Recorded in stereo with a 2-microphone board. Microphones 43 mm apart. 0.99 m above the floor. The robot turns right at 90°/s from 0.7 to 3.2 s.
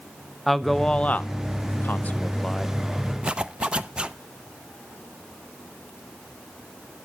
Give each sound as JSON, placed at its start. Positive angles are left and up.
{"t": 0.5, "sound": "a man speaking", "side_deg": 5, "distance_m": 0.5}
{"t": 3.2, "sound": "a zipper", "side_deg": -20, "distance_m": 0.5}